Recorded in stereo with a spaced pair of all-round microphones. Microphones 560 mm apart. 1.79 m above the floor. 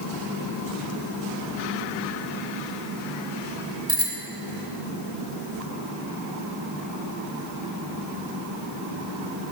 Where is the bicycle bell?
10° right (ahead or behind), 3 m.